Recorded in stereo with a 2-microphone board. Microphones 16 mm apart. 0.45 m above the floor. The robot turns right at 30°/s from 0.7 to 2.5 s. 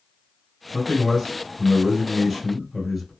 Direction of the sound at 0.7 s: 25° left (ahead or behind).